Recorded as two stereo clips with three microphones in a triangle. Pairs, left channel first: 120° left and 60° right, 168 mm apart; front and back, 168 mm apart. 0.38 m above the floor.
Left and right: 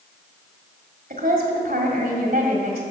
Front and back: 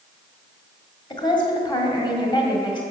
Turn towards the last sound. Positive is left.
turn(degrees=-60)